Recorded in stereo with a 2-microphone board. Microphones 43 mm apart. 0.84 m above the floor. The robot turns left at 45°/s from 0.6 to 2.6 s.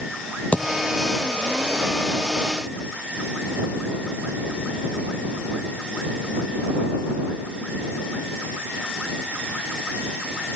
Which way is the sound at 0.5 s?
35° left (ahead or behind).